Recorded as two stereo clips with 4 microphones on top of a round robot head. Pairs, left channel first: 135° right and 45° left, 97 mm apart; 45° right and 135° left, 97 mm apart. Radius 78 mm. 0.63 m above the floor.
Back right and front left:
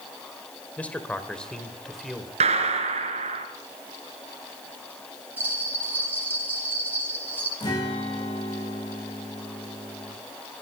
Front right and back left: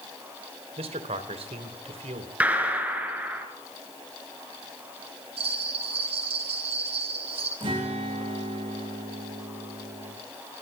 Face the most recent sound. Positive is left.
turn(degrees=175)